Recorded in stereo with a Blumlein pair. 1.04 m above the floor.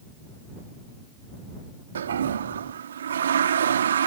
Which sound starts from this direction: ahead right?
A toilet flushing, at 1.9 s.